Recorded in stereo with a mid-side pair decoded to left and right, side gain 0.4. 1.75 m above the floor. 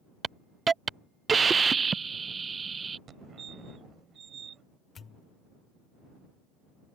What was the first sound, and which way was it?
A hiss, 40° right.